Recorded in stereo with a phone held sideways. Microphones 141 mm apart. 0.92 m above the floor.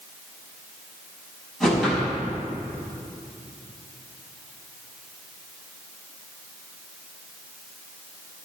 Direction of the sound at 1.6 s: Centre (ahead or behind).